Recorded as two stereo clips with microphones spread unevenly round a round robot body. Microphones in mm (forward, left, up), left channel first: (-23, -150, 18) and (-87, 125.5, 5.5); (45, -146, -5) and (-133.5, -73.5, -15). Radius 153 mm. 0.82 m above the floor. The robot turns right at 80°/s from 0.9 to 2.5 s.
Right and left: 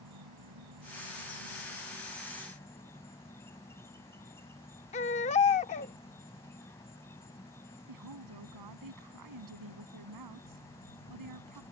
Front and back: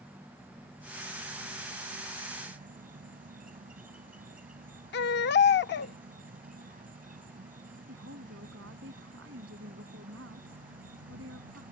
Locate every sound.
0.0 s an insect: 75° left; by 11.7 s 160° right
4.9 s a baby crying: 15° right
7.9 s a woman speaking: 110° left